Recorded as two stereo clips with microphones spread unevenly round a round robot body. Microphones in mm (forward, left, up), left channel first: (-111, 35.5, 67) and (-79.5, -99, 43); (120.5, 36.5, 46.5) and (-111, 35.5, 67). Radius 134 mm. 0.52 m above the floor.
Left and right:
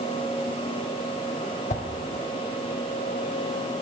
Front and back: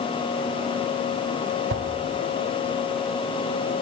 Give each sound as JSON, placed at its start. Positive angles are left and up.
{"t": 1.7, "sound": "a whoosh", "azimuth_deg": 135, "distance_m": 0.8}